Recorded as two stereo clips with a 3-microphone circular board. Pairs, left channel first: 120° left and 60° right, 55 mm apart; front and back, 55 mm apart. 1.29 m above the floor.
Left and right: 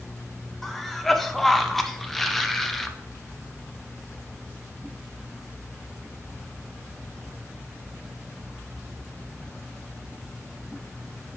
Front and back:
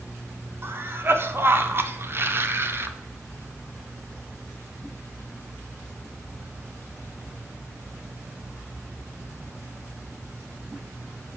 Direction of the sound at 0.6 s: 155° right.